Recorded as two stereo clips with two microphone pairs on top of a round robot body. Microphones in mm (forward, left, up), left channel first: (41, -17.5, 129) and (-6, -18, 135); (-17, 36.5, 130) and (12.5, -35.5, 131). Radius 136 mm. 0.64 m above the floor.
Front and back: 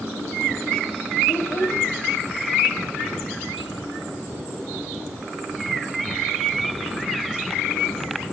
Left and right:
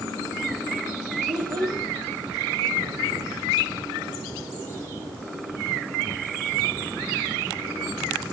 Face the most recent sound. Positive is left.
turn(degrees=-30)